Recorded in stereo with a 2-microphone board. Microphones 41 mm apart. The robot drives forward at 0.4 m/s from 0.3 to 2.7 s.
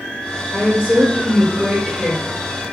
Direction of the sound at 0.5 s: 10° right (ahead or behind).